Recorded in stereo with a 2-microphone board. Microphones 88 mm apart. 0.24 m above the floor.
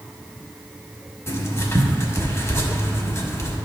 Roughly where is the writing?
Left.